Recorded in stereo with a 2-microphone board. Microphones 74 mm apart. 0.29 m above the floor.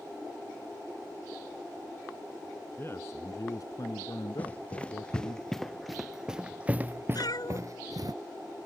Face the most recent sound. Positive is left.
turn(degrees=65)  # may be behind; listen again after turning